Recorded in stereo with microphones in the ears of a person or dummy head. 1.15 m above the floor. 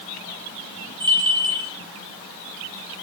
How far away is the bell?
About 9 m.